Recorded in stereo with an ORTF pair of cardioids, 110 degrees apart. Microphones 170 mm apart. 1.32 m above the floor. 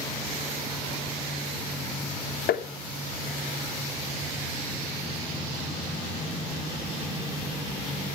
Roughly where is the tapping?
Ahead left.